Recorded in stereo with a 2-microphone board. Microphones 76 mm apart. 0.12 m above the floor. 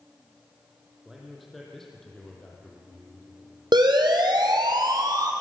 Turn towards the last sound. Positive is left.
turn(degrees=-55)  # may be behind; listen again after turning